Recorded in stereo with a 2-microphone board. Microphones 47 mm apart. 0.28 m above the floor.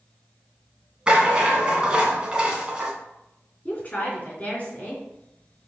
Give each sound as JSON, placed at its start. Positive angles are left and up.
{"t": 1.1, "sound": "a rattle", "side_deg": -20, "distance_m": 1.7}
{"t": 3.6, "sound": "a woman speaking", "side_deg": 30, "distance_m": 3.5}